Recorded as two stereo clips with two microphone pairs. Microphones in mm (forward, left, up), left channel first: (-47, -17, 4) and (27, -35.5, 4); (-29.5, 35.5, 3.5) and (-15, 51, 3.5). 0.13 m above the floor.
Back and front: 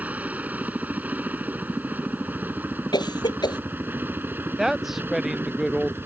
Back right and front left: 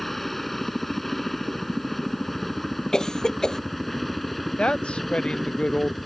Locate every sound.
0.0 s a helicopter: 55° right; by 6.1 s 45° right
2.9 s a cough: 175° left
4.6 s a woman speaking: 100° right